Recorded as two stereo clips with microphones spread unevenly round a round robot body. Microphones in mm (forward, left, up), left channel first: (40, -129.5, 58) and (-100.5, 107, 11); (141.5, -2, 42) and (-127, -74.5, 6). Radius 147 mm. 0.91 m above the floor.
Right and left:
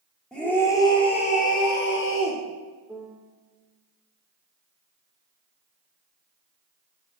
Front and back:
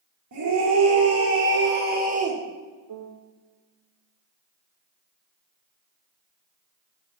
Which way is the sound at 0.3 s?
150° right.